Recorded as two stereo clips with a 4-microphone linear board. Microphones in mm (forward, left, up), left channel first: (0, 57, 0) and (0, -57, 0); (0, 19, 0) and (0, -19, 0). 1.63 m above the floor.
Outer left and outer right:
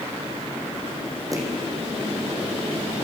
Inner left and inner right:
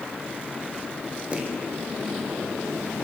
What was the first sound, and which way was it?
Footsteps, 30° right (ahead or behind).